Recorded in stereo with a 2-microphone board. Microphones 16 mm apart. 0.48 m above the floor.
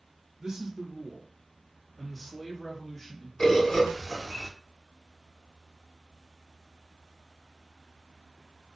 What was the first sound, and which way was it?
A man speaking, 45° right (ahead or behind).